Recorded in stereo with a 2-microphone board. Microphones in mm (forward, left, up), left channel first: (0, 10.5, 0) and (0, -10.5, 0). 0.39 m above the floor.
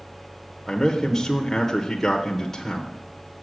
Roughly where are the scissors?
I don't hear scissors.